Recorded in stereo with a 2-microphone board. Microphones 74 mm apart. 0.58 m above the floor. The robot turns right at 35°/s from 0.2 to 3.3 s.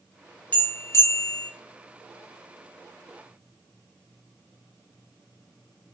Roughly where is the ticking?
I don't hear ticking.